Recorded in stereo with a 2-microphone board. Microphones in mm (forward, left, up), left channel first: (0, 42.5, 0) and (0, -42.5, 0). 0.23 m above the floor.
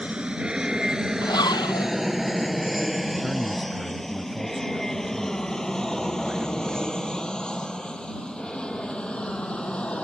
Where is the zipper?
55° left (ahead or behind).